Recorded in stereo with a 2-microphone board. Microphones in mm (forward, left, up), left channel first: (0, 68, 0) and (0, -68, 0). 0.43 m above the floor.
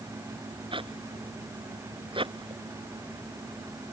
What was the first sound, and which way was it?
A zipper, 40° right (ahead or behind).